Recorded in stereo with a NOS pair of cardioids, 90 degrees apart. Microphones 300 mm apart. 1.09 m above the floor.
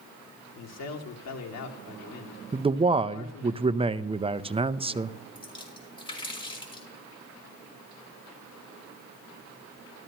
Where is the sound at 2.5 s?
20° right, 0.6 m.